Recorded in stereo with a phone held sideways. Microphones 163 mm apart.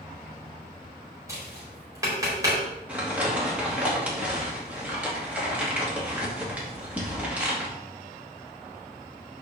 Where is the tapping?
20° right (ahead or behind), 4 m.